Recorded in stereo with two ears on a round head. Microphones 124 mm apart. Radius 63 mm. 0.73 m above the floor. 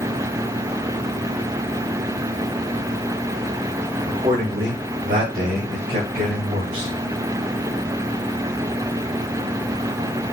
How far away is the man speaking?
About 2 m.